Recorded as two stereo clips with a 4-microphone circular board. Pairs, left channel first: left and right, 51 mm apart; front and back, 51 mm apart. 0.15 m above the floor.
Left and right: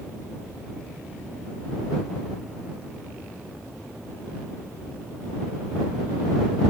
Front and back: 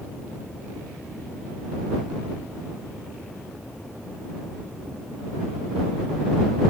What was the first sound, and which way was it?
Only background noise.